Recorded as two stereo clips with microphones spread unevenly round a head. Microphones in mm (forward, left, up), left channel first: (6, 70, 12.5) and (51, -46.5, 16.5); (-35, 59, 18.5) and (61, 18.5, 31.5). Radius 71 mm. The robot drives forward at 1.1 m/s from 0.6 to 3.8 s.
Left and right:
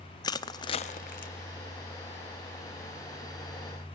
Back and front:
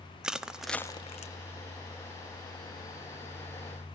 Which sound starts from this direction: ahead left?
Crushing, at 0.2 s.